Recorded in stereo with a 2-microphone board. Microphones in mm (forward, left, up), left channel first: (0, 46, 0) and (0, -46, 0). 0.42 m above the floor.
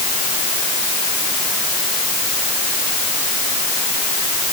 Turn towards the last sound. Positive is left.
No sound to turn to.